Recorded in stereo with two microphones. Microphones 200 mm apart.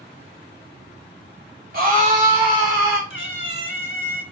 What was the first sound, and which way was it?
A scream, 45° right (ahead or behind).